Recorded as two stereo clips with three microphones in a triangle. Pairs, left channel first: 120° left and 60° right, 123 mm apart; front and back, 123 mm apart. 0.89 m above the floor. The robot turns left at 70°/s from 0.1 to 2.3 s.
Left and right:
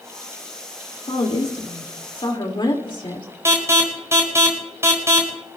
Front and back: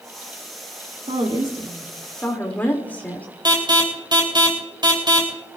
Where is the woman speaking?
160° left, 2 m; by 3.3 s 75° left, 2 m.